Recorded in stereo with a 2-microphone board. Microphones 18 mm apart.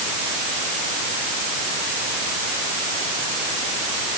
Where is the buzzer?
I don't hear a buzzer.